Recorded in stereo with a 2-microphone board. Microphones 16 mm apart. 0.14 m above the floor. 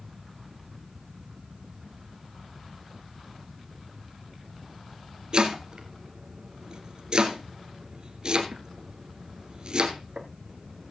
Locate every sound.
5.3 s chopping: 50° right (ahead or behind), 2.0 m